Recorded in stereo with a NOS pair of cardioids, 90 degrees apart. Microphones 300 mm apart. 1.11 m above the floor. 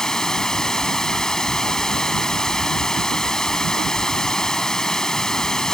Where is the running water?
Straight ahead.